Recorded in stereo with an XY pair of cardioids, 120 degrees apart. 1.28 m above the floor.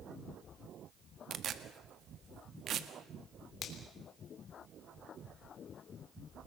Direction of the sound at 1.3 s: 50° right.